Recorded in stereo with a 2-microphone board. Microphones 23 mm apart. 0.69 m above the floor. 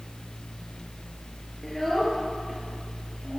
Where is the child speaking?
10° left (ahead or behind), 7.5 m; by 3.4 s 5° left (ahead or behind), 9 m.